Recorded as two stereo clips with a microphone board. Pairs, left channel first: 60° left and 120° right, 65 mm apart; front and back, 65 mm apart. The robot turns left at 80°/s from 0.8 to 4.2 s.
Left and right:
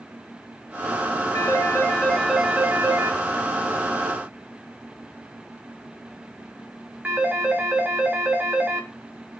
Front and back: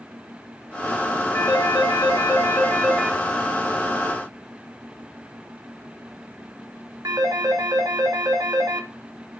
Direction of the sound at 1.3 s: 45° left.